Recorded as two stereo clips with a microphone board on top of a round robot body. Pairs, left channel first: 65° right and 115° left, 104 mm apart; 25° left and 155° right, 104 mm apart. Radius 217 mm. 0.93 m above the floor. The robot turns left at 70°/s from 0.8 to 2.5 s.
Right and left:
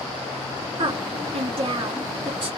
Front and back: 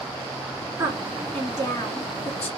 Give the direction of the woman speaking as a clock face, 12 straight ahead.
7 o'clock.